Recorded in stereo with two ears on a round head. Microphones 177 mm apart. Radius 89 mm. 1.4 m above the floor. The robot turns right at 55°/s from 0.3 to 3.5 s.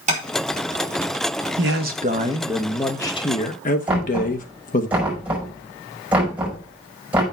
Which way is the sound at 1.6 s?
65° right.